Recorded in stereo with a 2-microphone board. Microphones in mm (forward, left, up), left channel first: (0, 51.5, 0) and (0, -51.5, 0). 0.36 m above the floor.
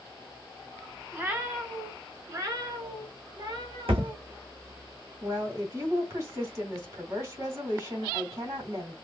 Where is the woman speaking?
35° right (ahead or behind), 2 m.